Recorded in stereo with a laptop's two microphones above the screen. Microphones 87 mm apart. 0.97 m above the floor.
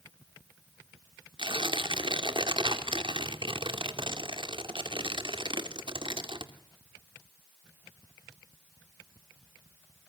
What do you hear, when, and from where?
1.4 s tearing paper: 70° right (ahead or behind), 2.5 m